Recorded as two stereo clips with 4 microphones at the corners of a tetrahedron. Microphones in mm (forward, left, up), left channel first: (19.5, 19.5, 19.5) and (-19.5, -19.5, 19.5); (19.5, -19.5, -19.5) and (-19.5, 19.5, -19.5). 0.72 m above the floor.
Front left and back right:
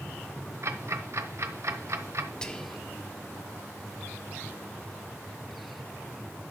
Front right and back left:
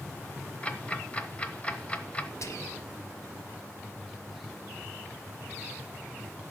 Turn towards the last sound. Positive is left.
turn(degrees=-30)